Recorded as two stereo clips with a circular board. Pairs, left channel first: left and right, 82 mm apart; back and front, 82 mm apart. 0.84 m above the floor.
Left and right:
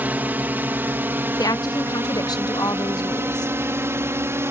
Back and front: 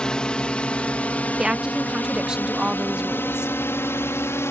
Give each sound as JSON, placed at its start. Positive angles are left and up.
{"t": 0.0, "sound": "a drone", "azimuth_deg": -115}
{"t": 1.4, "sound": "a woman speaking", "azimuth_deg": 80}